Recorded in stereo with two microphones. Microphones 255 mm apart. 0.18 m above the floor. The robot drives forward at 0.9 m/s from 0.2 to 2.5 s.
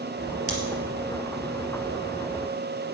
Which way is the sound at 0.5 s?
70° right (ahead or behind).